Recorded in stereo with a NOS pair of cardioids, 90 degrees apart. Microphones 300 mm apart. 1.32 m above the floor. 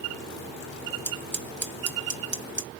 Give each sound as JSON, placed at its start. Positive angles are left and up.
{"t": 1.1, "sound": "scissors", "azimuth_deg": -35, "distance_m": 1.2}